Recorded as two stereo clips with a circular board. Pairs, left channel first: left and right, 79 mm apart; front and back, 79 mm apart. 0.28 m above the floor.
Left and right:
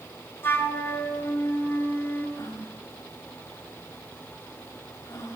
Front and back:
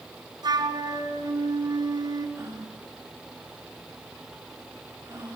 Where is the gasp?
125° left, 7.5 m.